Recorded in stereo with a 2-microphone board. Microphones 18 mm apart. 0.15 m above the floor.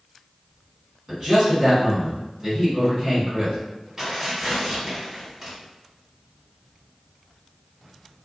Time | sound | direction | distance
1.1 | a man speaking | 25° right (ahead or behind) | 1.5 m
4.0 | tearing paper | 20° right (ahead or behind) | 1.6 m